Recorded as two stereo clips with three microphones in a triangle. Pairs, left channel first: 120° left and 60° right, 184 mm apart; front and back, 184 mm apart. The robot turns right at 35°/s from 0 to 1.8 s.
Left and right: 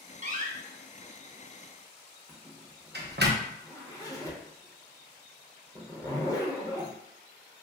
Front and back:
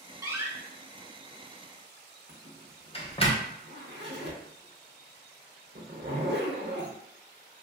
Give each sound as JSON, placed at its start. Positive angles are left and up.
{"t": 0.2, "sound": "a door slam", "azimuth_deg": -110, "distance_m": 0.6}
{"t": 2.3, "sound": "a zipper", "azimuth_deg": -165, "distance_m": 0.8}